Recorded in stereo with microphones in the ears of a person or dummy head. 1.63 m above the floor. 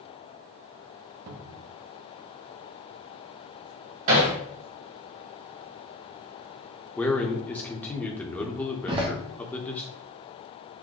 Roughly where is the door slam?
Centre.